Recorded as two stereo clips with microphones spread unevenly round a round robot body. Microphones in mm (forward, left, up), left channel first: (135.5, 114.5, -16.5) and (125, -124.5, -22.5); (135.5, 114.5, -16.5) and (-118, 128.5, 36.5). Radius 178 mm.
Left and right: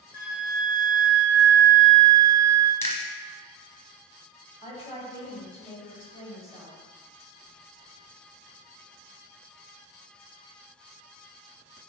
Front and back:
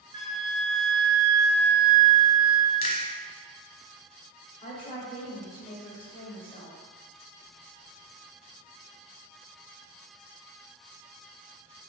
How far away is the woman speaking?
About 1.6 m.